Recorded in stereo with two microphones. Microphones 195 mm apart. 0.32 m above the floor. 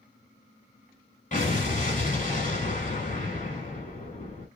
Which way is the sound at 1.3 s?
40° left (ahead or behind).